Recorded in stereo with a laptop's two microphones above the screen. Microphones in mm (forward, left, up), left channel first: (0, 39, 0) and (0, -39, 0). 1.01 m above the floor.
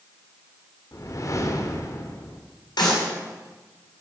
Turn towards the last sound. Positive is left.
turn(degrees=80)